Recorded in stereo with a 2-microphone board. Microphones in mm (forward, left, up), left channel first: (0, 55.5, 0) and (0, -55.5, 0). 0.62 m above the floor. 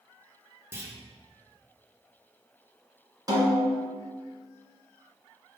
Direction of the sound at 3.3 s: 35° right (ahead or behind).